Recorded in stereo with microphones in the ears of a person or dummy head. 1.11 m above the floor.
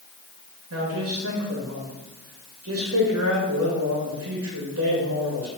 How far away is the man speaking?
About 2.0 m.